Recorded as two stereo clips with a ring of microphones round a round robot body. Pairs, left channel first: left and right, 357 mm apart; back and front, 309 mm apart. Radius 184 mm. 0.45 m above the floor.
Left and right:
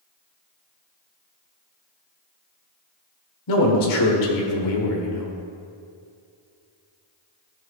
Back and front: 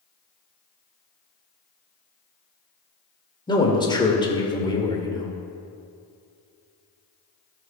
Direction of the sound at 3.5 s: 105° left.